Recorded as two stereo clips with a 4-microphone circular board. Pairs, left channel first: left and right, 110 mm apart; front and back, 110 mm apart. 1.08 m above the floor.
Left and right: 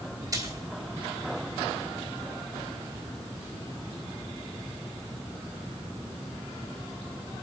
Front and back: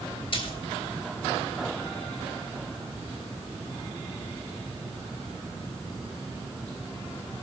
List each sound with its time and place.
0.3 s a splash: 35° right, 3 m